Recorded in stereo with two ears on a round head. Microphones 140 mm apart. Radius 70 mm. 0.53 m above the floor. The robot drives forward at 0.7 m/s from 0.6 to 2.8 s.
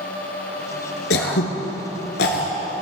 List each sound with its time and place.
1.1 s throat clearing: 75° left (ahead or behind), 1.6 m; by 2.5 s 65° left (ahead or behind), 1.7 m